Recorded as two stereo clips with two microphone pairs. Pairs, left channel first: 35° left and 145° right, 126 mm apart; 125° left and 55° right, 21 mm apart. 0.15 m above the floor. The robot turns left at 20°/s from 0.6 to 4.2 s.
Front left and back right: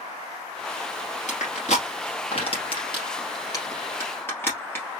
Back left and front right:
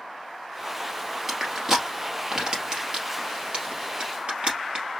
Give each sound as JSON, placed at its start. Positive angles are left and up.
{"t": 1.3, "sound": "crushing", "azimuth_deg": 20, "distance_m": 2.5}